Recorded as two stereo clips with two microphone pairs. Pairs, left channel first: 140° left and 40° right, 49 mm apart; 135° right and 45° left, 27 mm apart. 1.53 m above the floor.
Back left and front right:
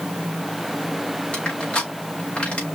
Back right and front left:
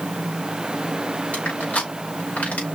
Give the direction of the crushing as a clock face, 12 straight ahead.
5 o'clock.